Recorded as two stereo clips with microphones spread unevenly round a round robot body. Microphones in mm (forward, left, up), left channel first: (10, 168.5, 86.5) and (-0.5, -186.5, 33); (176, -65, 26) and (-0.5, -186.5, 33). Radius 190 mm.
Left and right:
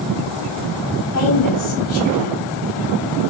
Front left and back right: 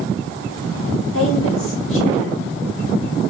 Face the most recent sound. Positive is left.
turn(degrees=40)